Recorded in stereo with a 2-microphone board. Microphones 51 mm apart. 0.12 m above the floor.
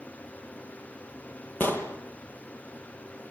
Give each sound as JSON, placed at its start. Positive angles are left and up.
{"t": 1.6, "sound": "an explosion", "side_deg": 35, "distance_m": 2.0}